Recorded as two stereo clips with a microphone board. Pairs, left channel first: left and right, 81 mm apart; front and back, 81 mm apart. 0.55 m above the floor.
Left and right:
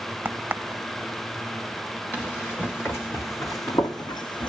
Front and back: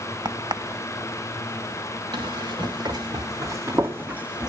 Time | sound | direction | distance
0.2 | a crack | 160° right | 0.7 m
2.1 | running footsteps | 160° left | 2.5 m